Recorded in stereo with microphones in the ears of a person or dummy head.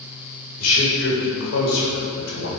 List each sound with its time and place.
0.6 s a man speaking: 75° left (ahead or behind), 1.4 m